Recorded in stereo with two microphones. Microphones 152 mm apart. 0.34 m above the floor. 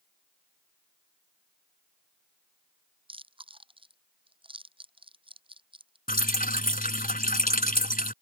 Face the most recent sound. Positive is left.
turn(degrees=70)  # may be behind; listen again after turning